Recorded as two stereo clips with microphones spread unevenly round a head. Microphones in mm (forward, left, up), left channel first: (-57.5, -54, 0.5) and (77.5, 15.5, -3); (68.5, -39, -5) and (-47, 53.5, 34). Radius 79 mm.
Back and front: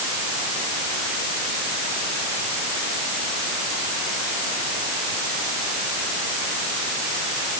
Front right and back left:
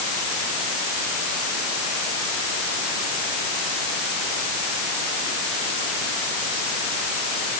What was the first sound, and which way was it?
Only background noise.